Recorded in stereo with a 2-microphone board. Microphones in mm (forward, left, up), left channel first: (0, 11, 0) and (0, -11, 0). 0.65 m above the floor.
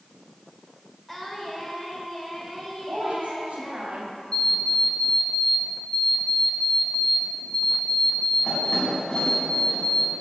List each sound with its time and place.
1.1 s singing: 10° left (ahead or behind), 2 m
2.9 s a woman speaking: 75° right (ahead or behind), 2.5 m
4.3 s an alarm clock: 45° left (ahead or behind), 3.5 m